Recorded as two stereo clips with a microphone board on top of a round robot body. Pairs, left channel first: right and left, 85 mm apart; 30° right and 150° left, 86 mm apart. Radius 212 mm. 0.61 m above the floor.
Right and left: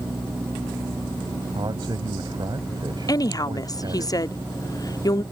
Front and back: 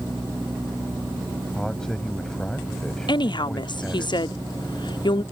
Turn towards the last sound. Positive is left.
turn(degrees=-50)